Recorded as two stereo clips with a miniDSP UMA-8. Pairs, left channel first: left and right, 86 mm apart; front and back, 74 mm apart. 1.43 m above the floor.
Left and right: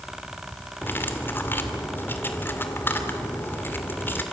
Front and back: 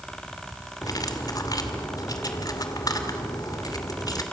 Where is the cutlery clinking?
25° left, 2.5 m.